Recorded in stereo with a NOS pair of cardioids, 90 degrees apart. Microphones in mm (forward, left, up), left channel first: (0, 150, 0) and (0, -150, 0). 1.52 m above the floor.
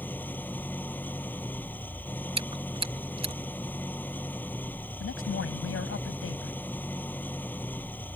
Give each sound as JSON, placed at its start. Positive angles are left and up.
{"t": 0.0, "sound": "an engine running", "azimuth_deg": 5}
{"t": 2.4, "sound": "chewing", "azimuth_deg": -20}
{"t": 5.0, "sound": "a man speaking", "azimuth_deg": 45}